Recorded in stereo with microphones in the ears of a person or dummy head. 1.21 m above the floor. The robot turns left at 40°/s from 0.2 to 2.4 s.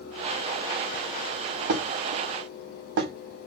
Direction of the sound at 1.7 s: 60° right (ahead or behind).